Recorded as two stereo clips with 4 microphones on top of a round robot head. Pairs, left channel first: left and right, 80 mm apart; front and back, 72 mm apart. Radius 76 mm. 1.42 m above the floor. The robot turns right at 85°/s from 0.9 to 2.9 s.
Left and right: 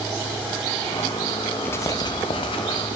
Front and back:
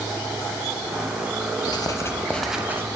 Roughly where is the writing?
Ahead.